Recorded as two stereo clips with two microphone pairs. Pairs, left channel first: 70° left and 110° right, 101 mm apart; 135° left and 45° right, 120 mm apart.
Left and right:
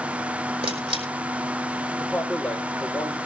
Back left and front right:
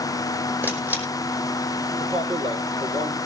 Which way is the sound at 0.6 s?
120° right.